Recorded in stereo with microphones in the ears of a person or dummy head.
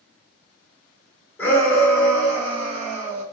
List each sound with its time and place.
1.4 s a shout: 15° left (ahead or behind), 1.1 m; by 3.2 s 45° right (ahead or behind), 1.1 m